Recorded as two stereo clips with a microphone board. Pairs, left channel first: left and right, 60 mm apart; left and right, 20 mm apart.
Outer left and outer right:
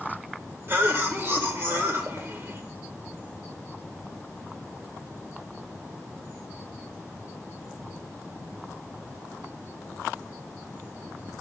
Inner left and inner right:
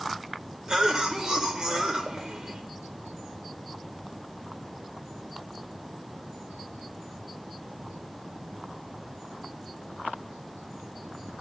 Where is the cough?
40° right (ahead or behind), 1.2 m.